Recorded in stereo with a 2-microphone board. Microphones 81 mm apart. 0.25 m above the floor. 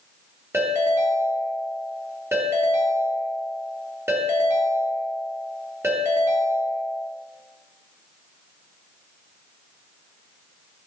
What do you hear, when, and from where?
0.5 s a ringtone: 30° right (ahead or behind), 2.5 m